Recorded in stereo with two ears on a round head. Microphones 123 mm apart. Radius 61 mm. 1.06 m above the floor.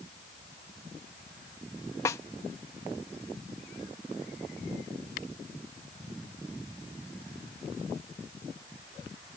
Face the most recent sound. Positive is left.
turn(degrees=25)  # may be behind; listen again after turning